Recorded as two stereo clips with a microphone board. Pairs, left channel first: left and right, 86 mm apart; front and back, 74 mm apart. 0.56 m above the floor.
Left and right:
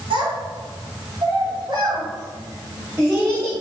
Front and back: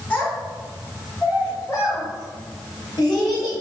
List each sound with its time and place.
0.1 s a child speaking: 80° right, 1.7 m; by 3.5 s straight ahead, 1.3 m